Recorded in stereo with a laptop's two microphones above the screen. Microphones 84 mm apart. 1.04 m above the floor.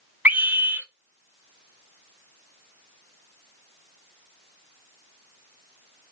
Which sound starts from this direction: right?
A scream, at 0.2 s.